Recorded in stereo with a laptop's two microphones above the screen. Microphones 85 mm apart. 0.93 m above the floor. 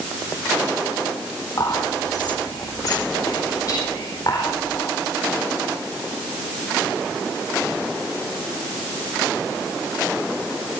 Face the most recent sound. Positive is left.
turn(degrees=50)  # may be behind; listen again after turning